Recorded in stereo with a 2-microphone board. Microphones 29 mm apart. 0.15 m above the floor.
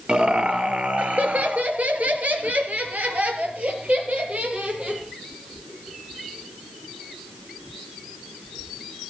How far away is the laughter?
About 3 m.